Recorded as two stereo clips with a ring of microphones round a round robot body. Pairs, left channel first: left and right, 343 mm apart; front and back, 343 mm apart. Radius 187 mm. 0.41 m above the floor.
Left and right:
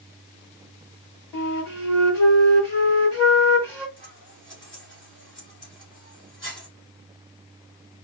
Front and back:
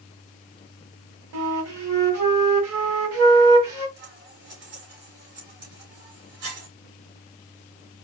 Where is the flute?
175° left, 1.8 m.